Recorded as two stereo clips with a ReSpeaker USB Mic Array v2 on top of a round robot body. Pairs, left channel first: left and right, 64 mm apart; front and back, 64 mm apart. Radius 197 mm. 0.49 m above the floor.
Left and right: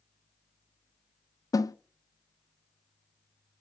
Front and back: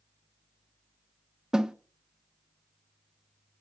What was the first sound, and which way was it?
A snare drum, 100° left.